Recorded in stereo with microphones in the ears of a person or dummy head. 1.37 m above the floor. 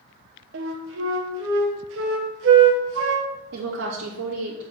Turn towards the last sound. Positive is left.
turn(degrees=-75)  # may be behind; listen again after turning